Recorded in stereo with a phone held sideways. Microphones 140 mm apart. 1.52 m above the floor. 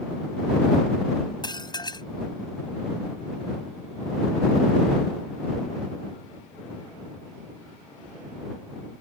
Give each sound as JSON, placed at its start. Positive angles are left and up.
{"t": 1.4, "sound": "dishes clattering", "side_deg": 30}